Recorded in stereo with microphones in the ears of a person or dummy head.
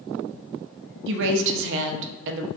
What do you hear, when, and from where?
1.1 s a woman speaking: 65° right (ahead or behind), 0.5 m